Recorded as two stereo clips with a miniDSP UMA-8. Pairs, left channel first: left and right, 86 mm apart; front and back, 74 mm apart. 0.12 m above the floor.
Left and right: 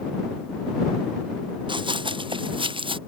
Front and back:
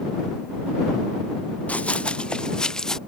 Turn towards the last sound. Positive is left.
turn(degrees=-80)